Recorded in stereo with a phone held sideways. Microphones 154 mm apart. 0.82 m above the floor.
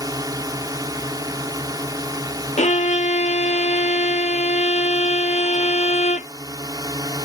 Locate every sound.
0.0 s a drone: 25° right (ahead or behind)
2.6 s a violin: 50° left (ahead or behind)